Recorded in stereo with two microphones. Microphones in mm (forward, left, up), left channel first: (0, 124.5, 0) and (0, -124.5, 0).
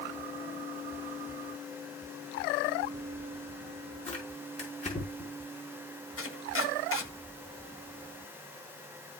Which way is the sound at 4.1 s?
30° left (ahead or behind).